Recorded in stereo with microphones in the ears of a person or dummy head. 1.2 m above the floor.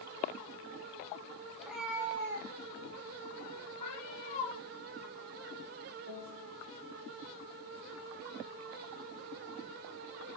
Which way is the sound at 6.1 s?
85° left.